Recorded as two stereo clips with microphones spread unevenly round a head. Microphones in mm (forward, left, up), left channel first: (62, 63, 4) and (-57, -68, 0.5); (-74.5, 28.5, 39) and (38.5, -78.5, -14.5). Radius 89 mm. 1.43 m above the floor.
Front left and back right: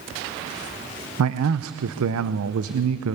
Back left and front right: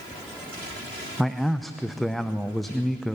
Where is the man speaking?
135° right, 0.9 m.